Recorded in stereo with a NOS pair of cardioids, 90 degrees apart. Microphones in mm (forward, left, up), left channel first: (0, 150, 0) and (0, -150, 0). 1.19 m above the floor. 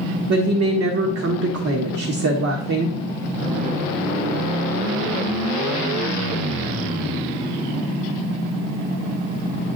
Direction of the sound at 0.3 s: 55° right.